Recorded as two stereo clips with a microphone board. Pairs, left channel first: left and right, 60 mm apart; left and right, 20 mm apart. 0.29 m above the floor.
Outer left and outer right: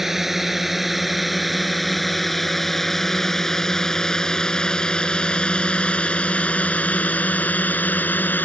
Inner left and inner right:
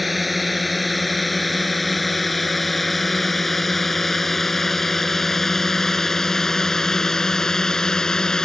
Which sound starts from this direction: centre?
A drone, at 0.0 s.